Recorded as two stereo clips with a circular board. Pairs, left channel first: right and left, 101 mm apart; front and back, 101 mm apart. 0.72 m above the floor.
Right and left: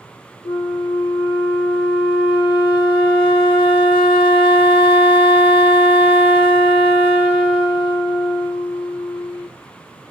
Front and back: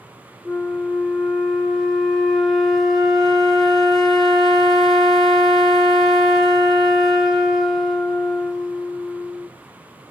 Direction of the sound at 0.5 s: 85° right.